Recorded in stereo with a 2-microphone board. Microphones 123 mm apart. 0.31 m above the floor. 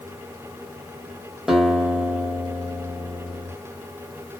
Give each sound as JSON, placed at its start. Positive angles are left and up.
{"t": 1.5, "sound": "a guitar", "side_deg": -5, "distance_m": 1.2}